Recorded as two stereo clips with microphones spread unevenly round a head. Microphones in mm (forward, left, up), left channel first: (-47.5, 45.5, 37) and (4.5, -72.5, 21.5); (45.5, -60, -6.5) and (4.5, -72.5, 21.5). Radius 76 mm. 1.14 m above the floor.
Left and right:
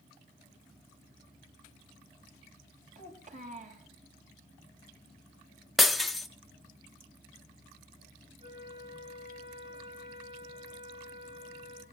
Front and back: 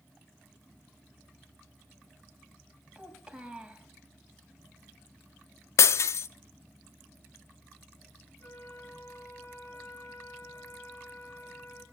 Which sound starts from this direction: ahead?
A flute, at 8.4 s.